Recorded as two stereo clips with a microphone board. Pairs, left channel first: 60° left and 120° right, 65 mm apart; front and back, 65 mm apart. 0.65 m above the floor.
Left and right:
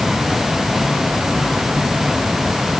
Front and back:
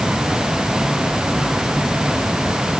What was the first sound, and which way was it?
Only background noise.